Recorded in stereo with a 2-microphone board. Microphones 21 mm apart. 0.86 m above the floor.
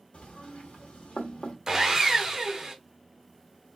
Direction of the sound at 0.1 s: 70° left (ahead or behind).